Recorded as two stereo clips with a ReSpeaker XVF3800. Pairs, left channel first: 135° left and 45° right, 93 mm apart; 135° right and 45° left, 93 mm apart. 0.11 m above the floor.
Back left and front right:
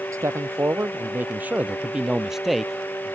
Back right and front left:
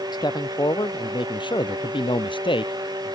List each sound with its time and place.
0.1 s a man speaking: 100° right; by 3.1 s 145° right